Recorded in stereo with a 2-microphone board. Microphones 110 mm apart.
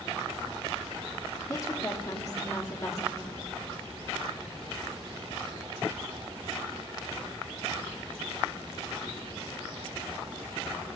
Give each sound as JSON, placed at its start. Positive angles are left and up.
{"t": 1.5, "sound": "a woman speaking", "side_deg": 30, "distance_m": 1.4}